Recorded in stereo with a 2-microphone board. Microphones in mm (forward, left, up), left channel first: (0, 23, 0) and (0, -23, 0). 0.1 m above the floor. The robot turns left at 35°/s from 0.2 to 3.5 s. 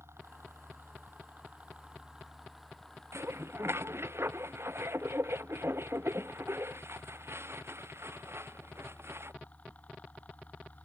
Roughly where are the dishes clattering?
Right.